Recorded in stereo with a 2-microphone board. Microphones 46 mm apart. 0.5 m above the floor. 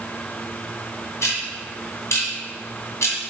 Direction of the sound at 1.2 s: 70° left (ahead or behind).